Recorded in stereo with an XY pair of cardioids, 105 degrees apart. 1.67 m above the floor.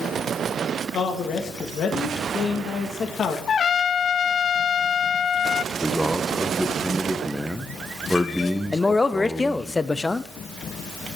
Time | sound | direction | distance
0.9 | a man speaking | 60° left | 1.8 m
3.5 | a trumpet | 45° left | 0.5 m
5.7 | a man speaking | straight ahead | 1.4 m
8.7 | a man speaking | 20° left | 0.7 m